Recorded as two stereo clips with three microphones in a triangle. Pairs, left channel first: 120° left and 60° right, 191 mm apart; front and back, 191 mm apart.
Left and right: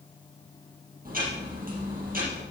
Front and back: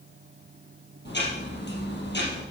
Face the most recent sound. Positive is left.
turn(degrees=-20)